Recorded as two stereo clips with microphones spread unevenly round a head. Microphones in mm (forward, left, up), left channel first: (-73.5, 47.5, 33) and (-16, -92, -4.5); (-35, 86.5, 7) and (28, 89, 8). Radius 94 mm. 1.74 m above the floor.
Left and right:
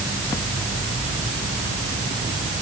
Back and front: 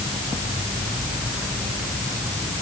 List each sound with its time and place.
Only background noise.